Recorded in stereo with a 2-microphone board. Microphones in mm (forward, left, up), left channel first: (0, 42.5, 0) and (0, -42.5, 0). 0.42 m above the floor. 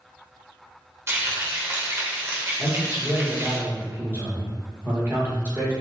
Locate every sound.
1.1 s frying: 30° right (ahead or behind), 0.9 m
2.6 s a man speaking: 25° right (ahead or behind), 1.1 m